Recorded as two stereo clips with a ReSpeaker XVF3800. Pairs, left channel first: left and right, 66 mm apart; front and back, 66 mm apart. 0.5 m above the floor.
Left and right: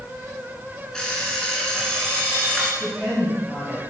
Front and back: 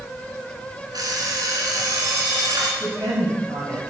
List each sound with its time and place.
0.9 s an alarm clock: 170° left, 2.5 m
2.8 s a woman speaking: 175° left, 3 m